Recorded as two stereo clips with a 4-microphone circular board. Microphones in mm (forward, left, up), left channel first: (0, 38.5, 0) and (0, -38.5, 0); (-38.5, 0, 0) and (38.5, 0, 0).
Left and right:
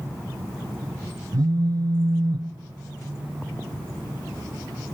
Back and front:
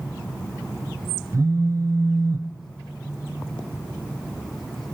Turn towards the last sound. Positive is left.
turn(degrees=-50)